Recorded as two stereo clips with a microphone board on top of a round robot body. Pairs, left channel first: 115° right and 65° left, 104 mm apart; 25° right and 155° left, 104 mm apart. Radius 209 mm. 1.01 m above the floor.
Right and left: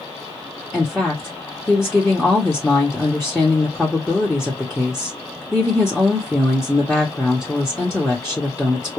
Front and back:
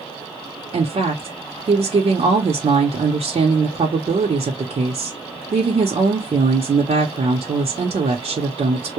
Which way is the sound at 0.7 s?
155° left.